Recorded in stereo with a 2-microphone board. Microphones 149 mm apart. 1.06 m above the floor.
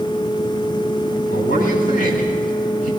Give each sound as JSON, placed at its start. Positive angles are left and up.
{"t": 1.3, "sound": "a man speaking", "side_deg": 60, "distance_m": 8.0}